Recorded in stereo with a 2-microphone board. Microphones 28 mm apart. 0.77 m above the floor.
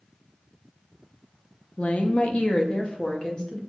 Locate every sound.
1.8 s a woman speaking: 50° left (ahead or behind), 0.6 m; by 3.6 s 30° left (ahead or behind), 1.1 m